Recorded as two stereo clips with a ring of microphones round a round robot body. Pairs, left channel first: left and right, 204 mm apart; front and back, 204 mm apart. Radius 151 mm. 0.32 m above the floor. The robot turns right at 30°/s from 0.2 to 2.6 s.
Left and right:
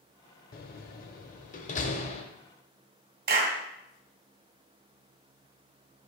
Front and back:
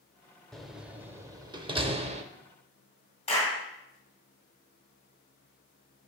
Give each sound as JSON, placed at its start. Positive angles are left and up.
{"t": 0.5, "sound": "a door slam", "azimuth_deg": 90, "distance_m": 0.8}
{"t": 3.3, "sound": "a clap", "azimuth_deg": -60, "distance_m": 2.0}